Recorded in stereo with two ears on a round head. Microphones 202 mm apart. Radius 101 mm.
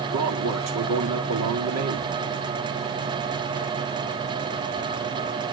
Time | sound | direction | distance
0.1 | a man speaking | 80° right | 2 m